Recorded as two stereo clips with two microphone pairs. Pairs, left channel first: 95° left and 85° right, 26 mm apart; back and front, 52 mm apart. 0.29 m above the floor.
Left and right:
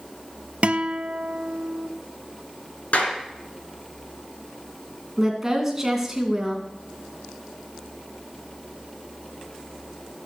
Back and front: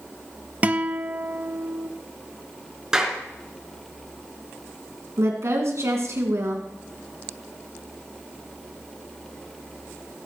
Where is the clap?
75° left, 3.5 m.